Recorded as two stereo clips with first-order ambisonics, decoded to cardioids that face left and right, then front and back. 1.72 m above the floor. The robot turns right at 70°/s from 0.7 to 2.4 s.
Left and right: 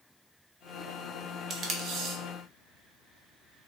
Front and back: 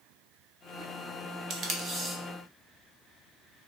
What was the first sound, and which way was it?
Tape being pulled, 150° right.